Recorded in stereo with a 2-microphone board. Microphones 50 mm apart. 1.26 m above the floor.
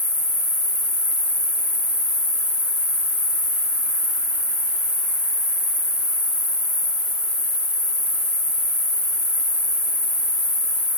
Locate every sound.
0.0 s an insect: 30° right (ahead or behind), 2.5 m